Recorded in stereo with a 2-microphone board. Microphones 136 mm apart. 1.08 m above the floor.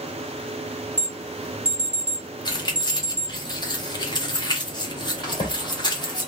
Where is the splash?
40° left (ahead or behind), 2 m.